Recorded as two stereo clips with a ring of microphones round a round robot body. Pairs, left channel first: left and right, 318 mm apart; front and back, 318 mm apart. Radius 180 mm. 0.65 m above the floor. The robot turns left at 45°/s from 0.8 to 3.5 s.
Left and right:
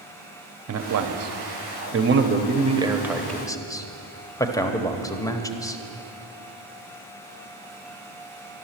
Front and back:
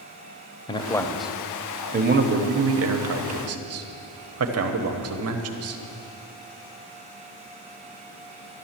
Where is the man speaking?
70° right, 1.1 m; by 5.8 s 165° left, 1.1 m.